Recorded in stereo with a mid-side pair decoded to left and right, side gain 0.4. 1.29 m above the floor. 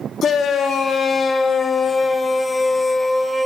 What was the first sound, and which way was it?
A shout, 65° left.